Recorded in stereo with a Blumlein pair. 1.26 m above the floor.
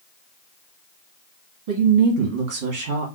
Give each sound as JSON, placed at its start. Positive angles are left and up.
{"t": 1.7, "sound": "a woman speaking", "azimuth_deg": -55, "distance_m": 2.0}